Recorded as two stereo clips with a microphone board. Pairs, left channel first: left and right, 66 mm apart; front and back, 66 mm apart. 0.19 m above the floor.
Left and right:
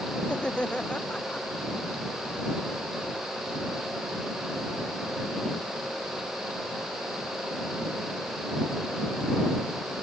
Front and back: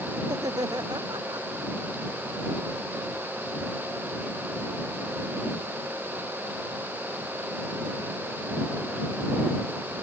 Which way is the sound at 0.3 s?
165° left.